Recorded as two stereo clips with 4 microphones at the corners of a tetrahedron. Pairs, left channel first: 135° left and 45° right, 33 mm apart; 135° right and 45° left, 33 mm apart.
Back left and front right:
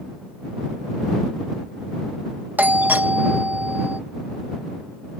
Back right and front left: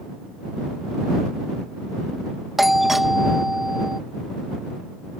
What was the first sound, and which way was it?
A doorbell, 35° right.